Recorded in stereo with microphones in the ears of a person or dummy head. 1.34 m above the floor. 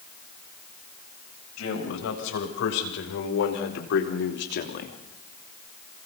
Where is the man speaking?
80° left, 7 m; by 5.0 s 45° left (ahead or behind), 2.5 m.